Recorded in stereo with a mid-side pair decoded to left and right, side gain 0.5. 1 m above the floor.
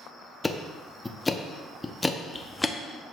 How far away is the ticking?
About 0.7 m.